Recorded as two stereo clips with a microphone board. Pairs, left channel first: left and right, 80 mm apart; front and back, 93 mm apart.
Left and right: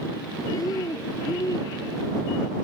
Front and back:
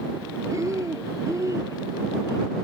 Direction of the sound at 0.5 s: 130° left.